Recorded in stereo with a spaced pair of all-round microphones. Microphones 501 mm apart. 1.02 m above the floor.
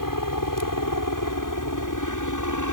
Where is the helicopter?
40° left (ahead or behind); by 2.7 s 35° left (ahead or behind).